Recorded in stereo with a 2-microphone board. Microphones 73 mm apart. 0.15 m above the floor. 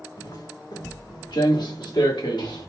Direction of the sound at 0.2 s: 60° left (ahead or behind).